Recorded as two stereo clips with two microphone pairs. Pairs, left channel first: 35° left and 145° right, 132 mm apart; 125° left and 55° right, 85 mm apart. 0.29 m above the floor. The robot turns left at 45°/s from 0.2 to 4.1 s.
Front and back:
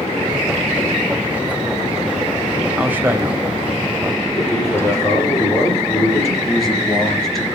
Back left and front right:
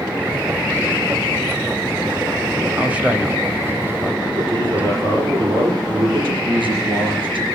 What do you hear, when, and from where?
2.8 s a man speaking: 85° right, 1.5 m; by 4.3 s 145° right, 1.5 m
4.4 s a man speaking: 35° right, 6.5 m
6.4 s a man speaking: 55° right, 4.5 m